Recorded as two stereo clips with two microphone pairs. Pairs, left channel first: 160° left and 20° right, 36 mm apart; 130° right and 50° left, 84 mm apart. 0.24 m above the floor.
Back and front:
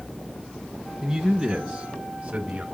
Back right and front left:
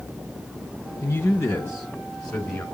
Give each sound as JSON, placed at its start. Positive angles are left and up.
{"t": 1.0, "sound": "a man speaking", "azimuth_deg": -115, "distance_m": 1.3}